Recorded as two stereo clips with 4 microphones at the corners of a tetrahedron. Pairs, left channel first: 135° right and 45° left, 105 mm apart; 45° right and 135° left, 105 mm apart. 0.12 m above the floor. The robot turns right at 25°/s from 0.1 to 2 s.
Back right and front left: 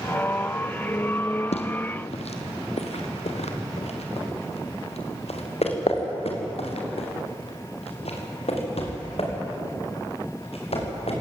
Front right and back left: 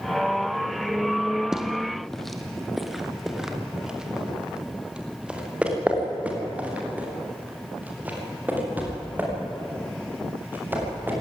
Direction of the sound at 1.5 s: 140° right.